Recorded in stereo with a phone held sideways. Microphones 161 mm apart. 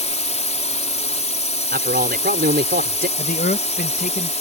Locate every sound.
0.0 s a drone: 45° left (ahead or behind)
1.7 s a man speaking: 75° right (ahead or behind)
3.2 s a man speaking: 60° left (ahead or behind)